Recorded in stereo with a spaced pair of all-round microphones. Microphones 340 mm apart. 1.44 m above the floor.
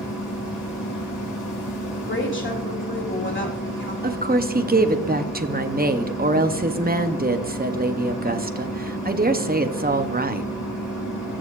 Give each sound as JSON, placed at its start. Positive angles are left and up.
{"t": 0.0, "sound": "a machine running", "side_deg": 75, "distance_m": 5.5}
{"t": 1.9, "sound": "a woman speaking", "side_deg": 35, "distance_m": 2.5}
{"t": 4.0, "sound": "a woman speaking", "side_deg": -30, "distance_m": 0.7}